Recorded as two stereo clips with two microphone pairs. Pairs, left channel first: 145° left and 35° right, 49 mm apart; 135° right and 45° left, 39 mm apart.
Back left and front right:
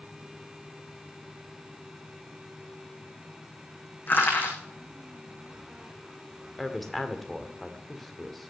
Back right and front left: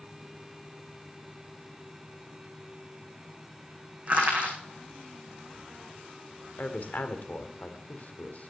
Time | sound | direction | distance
4.1 | crushing | 100° left | 6 m
6.6 | a woman speaking | 130° right | 1.8 m